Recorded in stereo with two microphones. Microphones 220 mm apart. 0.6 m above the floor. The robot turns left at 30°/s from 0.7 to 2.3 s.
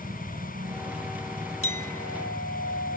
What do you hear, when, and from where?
0.0 s a helicopter: 30° right (ahead or behind); by 3.0 s centre (ahead or behind)
1.6 s a clink: 75° left (ahead or behind); by 3.0 s 85° left